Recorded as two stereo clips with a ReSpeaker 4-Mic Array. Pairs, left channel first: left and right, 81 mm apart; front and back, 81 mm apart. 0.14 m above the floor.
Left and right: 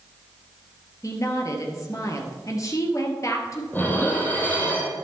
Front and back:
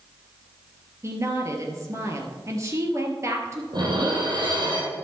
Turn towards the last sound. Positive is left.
turn(degrees=155)